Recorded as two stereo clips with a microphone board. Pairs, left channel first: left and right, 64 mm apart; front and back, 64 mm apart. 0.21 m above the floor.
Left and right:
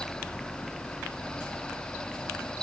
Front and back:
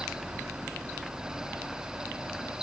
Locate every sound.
Only background noise.